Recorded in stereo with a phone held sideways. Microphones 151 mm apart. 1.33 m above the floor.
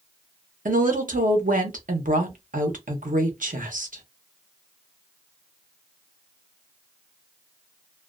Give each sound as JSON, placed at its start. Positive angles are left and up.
{"t": 0.7, "sound": "a woman speaking", "side_deg": -65, "distance_m": 0.8}